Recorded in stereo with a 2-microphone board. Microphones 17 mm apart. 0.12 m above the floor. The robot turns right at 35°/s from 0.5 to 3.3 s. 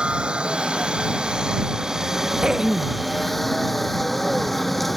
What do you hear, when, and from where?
0.0 s a helicopter: 90° right; by 5.0 s 10° left
2.4 s throat clearing: 50° right (ahead or behind); by 3.0 s 30° right (ahead or behind)